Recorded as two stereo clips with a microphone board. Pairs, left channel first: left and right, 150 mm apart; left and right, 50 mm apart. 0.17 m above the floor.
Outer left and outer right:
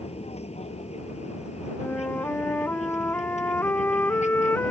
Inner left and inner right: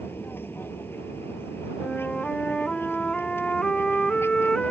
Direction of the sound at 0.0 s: 45° left (ahead or behind).